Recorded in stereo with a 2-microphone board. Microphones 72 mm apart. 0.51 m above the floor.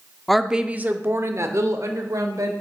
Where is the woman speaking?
5° left (ahead or behind), 0.6 m; by 2.5 s 55° right (ahead or behind), 1.7 m.